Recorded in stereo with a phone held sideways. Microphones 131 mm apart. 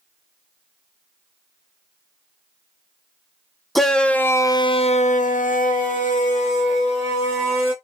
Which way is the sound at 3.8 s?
Centre (ahead or behind).